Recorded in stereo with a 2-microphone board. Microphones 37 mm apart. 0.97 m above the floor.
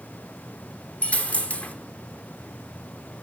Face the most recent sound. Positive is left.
turn(degrees=40)  # may be behind; listen again after turning